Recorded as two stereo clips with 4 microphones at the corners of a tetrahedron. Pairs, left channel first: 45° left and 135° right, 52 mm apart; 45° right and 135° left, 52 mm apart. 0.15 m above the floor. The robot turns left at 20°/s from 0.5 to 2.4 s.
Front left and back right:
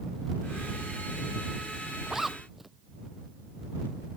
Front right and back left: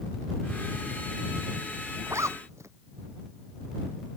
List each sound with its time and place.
2.1 s a zipper: 145° left; by 2.7 s 140° left